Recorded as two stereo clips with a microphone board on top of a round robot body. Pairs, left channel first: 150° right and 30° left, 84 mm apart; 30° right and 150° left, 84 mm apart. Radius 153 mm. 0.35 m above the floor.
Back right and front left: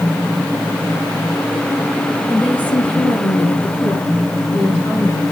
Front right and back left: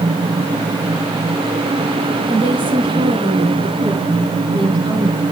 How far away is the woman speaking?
About 7.5 m.